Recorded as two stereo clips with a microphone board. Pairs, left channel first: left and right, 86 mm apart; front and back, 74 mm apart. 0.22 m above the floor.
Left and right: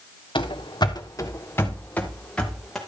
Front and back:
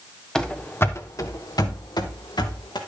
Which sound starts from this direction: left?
Running footsteps, at 0.3 s.